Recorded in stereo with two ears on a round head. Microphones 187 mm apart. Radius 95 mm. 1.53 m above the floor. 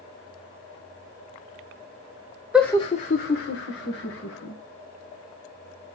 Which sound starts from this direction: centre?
Laughter, at 2.5 s.